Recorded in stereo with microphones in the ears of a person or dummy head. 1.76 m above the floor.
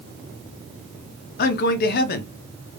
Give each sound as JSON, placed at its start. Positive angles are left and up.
{"t": 1.4, "sound": "a man speaking", "side_deg": 60, "distance_m": 0.7}